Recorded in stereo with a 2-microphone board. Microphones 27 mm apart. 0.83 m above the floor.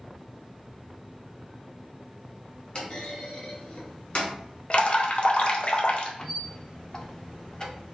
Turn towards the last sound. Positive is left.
turn(degrees=25)  # may be behind; listen again after turning